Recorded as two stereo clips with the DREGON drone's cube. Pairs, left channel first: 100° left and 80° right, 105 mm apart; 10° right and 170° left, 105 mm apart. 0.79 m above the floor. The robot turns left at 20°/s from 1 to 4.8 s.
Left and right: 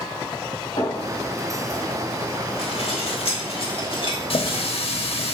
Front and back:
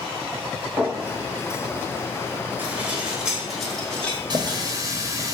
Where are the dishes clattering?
100° left, 1.0 m; by 4.6 s 60° left, 1.0 m.